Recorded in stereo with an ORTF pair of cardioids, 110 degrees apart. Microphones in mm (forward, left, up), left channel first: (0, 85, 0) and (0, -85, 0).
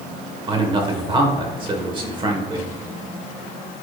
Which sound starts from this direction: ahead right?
A man speaking, at 0.5 s.